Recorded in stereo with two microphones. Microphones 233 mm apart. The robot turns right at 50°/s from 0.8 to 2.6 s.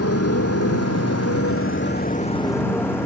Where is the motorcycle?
75° left (ahead or behind); by 3.1 s 10° left (ahead or behind).